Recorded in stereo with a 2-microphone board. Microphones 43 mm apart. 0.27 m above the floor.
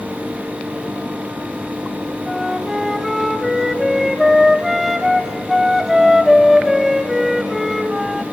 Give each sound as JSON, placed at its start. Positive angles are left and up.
{"t": 2.3, "sound": "a flute", "side_deg": -5, "distance_m": 1.0}